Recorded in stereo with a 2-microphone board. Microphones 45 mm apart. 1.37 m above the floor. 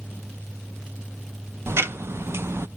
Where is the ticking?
60° right (ahead or behind), 0.6 m.